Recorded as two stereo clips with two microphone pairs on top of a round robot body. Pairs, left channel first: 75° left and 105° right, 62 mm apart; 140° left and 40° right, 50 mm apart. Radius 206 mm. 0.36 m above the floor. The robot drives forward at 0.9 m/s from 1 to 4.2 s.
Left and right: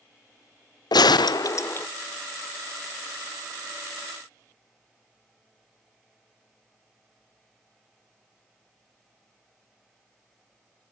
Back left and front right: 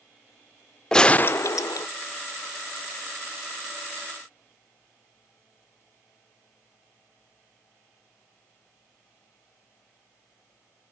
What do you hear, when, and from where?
0.9 s a gunshot: 65° left, 0.6 m; by 1.9 s 140° left, 0.7 m